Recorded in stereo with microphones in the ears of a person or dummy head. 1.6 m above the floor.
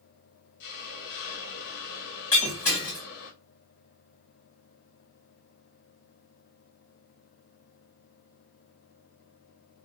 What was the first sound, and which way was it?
A hiss, 55° left (ahead or behind).